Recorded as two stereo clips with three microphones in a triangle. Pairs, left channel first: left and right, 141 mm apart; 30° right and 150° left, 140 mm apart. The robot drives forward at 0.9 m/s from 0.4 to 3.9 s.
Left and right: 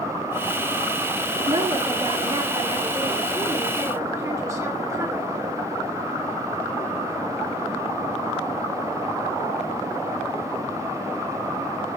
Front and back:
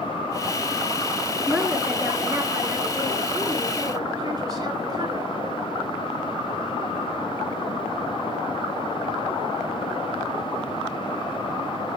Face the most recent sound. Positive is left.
turn(degrees=-155)